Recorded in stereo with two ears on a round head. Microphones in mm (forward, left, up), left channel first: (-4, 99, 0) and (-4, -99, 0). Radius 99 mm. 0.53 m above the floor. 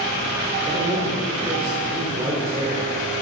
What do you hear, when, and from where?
0.7 s a man speaking: 20° right (ahead or behind), 1.4 m